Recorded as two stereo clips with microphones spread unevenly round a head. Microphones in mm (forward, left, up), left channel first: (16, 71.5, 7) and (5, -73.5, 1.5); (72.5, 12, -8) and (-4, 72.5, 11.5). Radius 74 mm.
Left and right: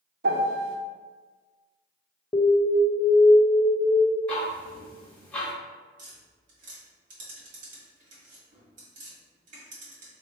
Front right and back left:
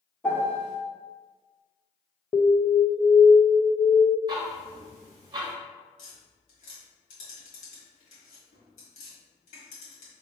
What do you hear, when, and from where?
0.2 s a piano: 115° right, 0.8 m
2.3 s an alarm: 20° left, 0.5 m
4.3 s ticking: 165° left, 1.0 m
6.0 s tapping: 60° right, 1.9 m